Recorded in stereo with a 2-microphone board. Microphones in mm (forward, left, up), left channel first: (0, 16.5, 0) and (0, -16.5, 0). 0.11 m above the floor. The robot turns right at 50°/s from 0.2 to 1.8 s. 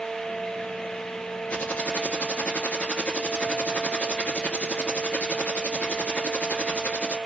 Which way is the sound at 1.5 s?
45° left (ahead or behind).